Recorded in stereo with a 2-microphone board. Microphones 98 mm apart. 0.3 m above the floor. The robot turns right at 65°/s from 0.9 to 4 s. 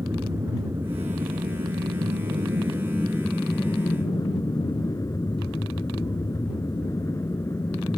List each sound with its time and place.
0.0 s an aircraft: 30° right (ahead or behind); by 8.0 s 25° left (ahead or behind)